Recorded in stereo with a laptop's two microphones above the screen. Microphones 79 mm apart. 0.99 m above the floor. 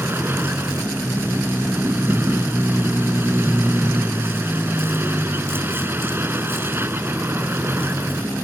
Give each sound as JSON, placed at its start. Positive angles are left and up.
{"t": 0.0, "sound": "a vehicle", "side_deg": -30}